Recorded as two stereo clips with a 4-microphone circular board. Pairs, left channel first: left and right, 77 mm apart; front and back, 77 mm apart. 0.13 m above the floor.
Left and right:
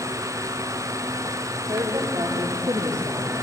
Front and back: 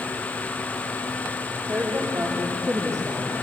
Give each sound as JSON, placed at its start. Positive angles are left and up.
{"t": 1.7, "sound": "a woman speaking", "azimuth_deg": -120, "distance_m": 5.5}